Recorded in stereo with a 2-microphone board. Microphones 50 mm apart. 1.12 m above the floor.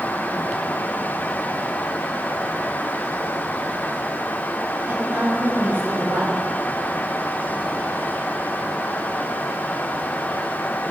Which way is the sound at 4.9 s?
45° right (ahead or behind).